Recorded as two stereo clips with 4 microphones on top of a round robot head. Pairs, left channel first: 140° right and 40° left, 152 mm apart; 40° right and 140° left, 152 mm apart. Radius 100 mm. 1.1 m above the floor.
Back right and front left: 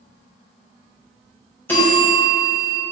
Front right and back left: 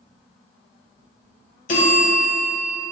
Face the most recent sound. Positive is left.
turn(degrees=-65)